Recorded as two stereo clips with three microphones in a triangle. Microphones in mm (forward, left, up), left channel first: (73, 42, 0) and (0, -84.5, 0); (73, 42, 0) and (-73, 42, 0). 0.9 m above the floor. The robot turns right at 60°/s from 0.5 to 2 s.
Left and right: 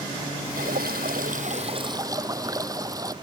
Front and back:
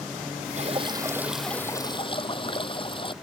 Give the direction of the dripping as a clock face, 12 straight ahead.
5 o'clock.